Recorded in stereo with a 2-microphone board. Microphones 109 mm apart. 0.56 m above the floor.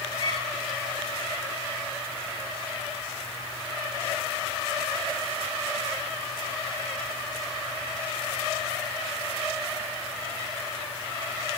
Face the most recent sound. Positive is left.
turn(degrees=45)  # may be behind; listen again after turning